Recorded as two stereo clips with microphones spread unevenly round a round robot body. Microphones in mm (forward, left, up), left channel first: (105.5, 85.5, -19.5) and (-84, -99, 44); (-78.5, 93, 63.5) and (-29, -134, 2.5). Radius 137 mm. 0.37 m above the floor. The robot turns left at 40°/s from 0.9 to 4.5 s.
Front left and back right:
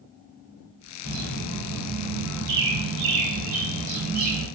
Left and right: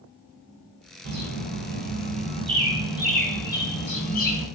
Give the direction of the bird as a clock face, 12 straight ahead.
2 o'clock.